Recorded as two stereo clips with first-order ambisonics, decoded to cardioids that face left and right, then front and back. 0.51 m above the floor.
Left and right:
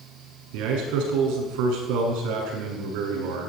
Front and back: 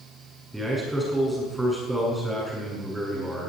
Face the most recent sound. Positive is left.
turn(degrees=-95)